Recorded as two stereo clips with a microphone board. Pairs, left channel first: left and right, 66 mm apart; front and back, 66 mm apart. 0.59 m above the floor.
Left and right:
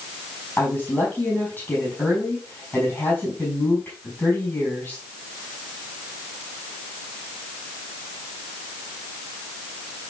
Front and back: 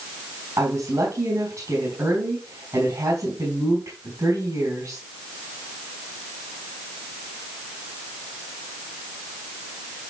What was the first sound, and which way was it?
A woman speaking, 150° left.